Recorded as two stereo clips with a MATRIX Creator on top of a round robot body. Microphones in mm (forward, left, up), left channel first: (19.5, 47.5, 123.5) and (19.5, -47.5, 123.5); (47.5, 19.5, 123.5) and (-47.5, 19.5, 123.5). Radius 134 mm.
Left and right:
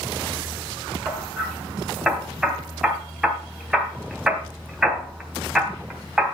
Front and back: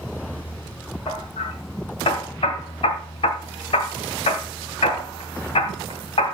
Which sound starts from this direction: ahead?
Hammering, at 1.1 s.